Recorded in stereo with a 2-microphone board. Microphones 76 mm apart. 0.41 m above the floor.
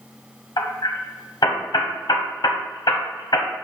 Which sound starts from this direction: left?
Hammering, at 0.6 s.